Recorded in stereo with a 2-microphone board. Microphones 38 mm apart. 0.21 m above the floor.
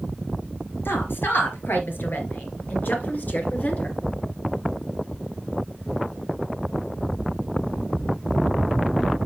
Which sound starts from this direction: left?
A woman speaking, at 0.8 s.